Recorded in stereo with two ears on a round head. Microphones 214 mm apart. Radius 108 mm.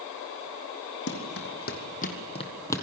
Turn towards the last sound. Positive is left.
turn(degrees=10)  # may be behind; listen again after turning